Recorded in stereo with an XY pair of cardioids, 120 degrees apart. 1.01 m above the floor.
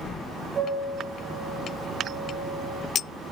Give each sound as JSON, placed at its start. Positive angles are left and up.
{"t": 0.6, "sound": "a piano", "azimuth_deg": -50, "distance_m": 1.2}